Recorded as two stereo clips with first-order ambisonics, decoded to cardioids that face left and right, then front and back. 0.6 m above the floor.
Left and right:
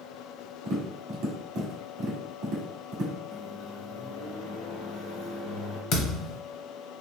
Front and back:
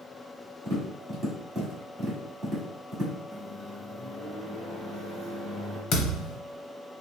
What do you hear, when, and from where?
0.7 s tapping: 100° right, 1.3 m
3.3 s a microwave: 85° left, 1.5 m
5.9 s a thud: 45° left, 0.8 m